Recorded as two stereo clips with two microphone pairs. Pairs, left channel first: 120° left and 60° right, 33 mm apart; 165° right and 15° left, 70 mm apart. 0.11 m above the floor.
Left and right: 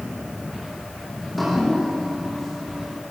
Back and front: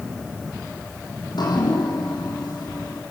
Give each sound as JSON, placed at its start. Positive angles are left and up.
{"t": 1.2, "sound": "dripping", "azimuth_deg": -150, "distance_m": 6.0}